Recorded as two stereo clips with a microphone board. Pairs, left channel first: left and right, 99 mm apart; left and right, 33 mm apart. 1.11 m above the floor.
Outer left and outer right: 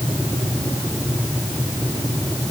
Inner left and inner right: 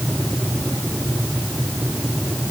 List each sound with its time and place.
Only background noise.